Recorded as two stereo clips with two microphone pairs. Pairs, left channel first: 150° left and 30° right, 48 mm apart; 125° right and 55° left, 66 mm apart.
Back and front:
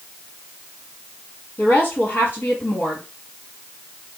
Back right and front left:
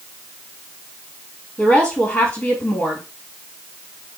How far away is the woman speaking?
About 1.8 m.